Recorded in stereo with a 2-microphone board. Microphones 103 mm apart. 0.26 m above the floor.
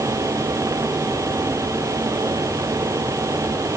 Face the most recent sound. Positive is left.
No sound to turn to.